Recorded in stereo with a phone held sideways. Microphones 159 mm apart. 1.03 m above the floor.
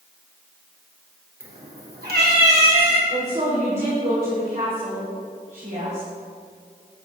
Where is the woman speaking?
50° right (ahead or behind), 3 m.